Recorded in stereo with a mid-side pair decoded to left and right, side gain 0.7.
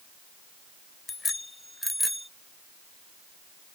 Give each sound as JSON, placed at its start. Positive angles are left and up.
{"t": 1.1, "sound": "a bicycle bell", "azimuth_deg": 20}